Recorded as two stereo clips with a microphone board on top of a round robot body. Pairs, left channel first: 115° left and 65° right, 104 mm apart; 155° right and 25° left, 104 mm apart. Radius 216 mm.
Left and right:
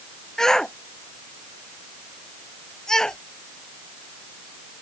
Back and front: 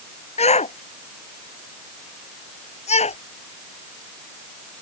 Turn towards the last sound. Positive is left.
turn(degrees=-165)